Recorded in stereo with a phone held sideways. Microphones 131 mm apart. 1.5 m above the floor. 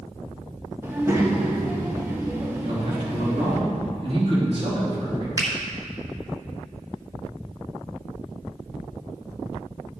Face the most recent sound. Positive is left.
turn(degrees=-25)  # may be behind; listen again after turning